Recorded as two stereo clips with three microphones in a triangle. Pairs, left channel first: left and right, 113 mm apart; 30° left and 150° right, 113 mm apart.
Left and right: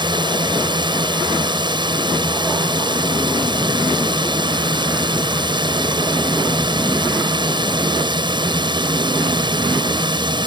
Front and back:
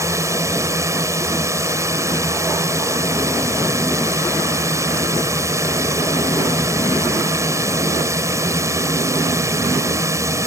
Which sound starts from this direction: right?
A drone, at 0.0 s.